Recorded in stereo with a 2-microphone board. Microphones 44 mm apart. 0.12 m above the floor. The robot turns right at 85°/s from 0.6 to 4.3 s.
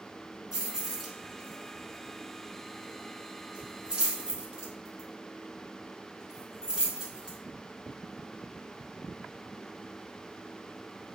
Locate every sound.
0.5 s keys jangling: 15° right (ahead or behind), 0.9 m; by 7.4 s 20° right (ahead or behind), 0.9 m